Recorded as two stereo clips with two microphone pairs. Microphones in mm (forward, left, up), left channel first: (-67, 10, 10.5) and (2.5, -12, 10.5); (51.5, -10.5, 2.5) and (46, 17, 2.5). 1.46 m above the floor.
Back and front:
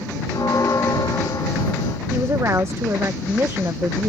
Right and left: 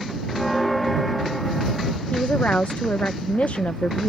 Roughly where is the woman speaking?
Right.